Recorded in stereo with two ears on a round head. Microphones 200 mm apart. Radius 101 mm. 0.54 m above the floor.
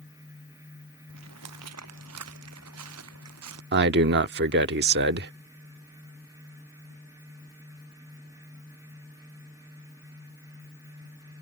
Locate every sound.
1.1 s footsteps: 90° right; by 3.6 s 80° right
3.7 s a man speaking: 50° right (ahead or behind)